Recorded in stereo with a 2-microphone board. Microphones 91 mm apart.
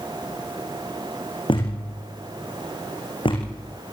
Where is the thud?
65° left (ahead or behind), 7 m.